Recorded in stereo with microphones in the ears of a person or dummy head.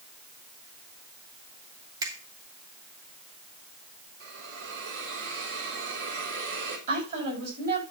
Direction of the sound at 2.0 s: 15° right (ahead or behind).